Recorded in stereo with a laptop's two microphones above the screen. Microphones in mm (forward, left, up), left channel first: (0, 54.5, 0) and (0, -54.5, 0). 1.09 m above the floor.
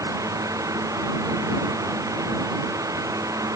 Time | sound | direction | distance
0.0 | a fan | 35° right (ahead or behind) | ?